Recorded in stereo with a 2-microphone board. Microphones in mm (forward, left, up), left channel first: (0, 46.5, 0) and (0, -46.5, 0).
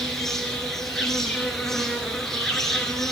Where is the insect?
5° left (ahead or behind), 3.5 m.